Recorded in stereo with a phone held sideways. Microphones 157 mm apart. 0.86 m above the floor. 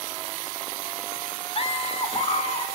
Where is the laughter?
40° left (ahead or behind), 3 m.